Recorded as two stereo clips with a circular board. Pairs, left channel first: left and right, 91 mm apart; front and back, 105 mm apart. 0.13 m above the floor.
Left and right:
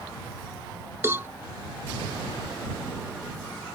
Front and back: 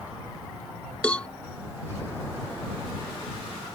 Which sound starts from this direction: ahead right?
A cowbell, at 1.0 s.